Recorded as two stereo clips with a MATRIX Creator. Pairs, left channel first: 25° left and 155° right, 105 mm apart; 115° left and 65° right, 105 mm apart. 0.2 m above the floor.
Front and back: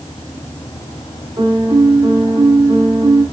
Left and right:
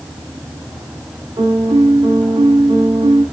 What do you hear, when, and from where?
1.4 s a piano: 110° right, 4 m